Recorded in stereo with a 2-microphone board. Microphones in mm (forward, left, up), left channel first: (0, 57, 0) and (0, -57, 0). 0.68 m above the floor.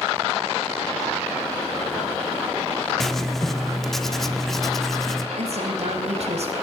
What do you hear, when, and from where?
3.0 s writing: centre (ahead or behind), 1.5 m
5.4 s a woman speaking: 65° right (ahead or behind), 4 m